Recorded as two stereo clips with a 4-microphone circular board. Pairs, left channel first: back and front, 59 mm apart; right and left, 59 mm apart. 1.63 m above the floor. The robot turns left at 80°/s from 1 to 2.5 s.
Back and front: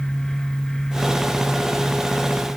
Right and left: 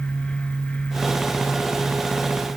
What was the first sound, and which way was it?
Only background noise.